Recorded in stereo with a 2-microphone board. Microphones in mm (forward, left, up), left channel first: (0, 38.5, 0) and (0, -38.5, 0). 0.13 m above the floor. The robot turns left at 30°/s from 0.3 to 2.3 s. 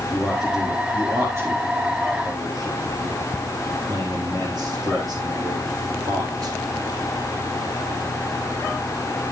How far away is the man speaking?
About 3.5 m.